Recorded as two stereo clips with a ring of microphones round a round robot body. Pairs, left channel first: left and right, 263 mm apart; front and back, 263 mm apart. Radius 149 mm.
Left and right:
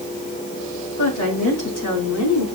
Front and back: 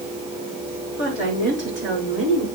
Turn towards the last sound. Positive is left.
turn(degrees=110)